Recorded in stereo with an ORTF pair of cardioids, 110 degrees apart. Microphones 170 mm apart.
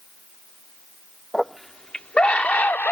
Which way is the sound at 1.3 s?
Straight ahead.